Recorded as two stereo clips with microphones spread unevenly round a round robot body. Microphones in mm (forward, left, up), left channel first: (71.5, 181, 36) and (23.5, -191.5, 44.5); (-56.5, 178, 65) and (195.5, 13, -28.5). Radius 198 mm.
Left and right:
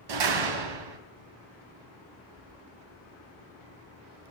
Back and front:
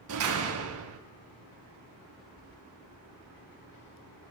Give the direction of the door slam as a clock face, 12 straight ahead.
3 o'clock.